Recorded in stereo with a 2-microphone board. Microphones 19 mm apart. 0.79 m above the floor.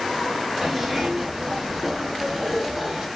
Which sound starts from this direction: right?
A zipper, at 0.6 s.